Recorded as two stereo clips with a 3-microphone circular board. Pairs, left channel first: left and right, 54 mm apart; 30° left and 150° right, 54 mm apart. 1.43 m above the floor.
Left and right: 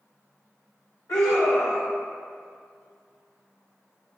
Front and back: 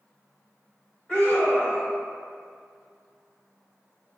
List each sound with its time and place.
1.1 s a scream: 100° left, 0.9 m